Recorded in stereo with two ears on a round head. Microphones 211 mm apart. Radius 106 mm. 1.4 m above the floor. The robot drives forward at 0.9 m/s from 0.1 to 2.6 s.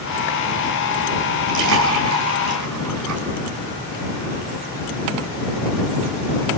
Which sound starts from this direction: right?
A splash, at 1.5 s.